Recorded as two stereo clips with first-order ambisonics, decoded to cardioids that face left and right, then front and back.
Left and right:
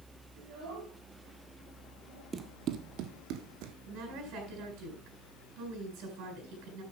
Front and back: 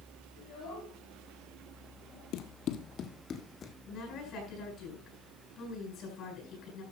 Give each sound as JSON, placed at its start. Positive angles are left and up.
{"t": 0.4, "sound": "a child speaking", "azimuth_deg": -50, "distance_m": 8.5}
{"t": 2.3, "sound": "running footsteps", "azimuth_deg": -25, "distance_m": 1.1}
{"t": 3.9, "sound": "a woman speaking", "azimuth_deg": -55, "distance_m": 10.0}